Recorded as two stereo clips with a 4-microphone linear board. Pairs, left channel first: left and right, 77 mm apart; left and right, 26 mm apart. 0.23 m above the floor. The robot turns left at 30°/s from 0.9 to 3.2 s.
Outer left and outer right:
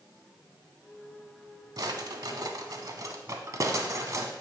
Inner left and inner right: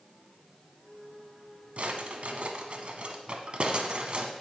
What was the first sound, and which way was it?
A drawer, 60° right (ahead or behind).